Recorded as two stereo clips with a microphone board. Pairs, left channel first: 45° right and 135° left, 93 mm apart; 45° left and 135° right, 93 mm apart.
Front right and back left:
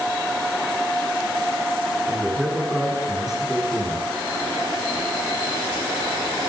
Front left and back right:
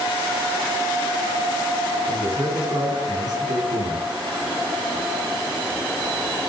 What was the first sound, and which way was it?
A man speaking, 140° right.